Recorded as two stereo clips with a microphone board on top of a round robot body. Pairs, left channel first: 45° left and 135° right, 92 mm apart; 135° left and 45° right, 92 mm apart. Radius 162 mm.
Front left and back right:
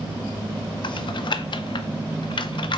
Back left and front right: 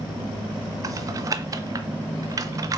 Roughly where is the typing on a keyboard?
Ahead.